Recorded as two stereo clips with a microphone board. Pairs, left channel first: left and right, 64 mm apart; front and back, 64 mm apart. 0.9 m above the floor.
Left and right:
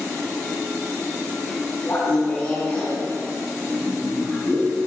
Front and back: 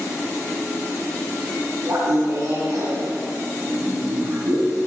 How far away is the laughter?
About 9 m.